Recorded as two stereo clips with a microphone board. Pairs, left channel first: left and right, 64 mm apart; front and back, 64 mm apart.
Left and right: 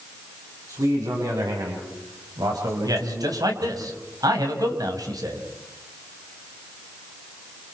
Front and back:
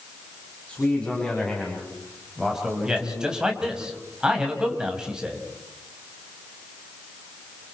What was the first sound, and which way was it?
A man speaking, 70° right.